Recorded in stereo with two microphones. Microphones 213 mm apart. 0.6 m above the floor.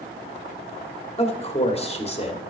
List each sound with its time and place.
1.2 s a man speaking: 30° left (ahead or behind), 1.4 m